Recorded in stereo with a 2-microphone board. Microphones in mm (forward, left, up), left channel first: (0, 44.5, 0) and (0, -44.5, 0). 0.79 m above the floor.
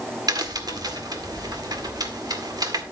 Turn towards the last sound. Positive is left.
turn(degrees=-50)  # may be behind; listen again after turning